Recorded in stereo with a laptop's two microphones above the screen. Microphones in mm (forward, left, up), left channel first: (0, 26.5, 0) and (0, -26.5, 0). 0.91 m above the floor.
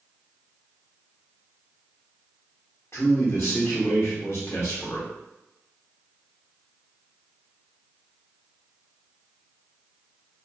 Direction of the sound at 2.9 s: 55° left (ahead or behind).